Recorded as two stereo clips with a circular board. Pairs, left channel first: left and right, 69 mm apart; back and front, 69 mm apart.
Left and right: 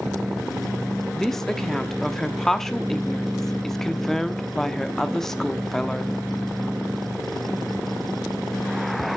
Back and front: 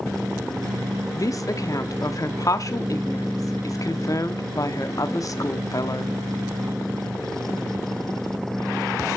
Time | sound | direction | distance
1.1 | a woman speaking | 170° left | 0.9 m